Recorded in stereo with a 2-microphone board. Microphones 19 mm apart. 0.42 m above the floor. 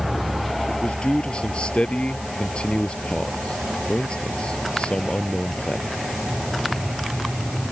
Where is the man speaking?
75° left (ahead or behind).